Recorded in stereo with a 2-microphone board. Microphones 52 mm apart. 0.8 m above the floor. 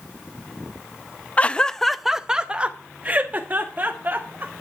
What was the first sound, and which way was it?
Laughter, 25° left (ahead or behind).